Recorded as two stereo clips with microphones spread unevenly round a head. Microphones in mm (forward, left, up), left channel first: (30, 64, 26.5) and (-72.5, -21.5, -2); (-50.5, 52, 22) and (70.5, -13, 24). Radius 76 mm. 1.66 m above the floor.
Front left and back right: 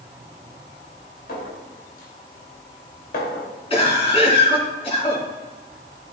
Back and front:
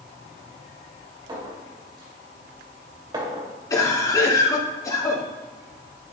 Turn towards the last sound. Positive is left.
turn(degrees=85)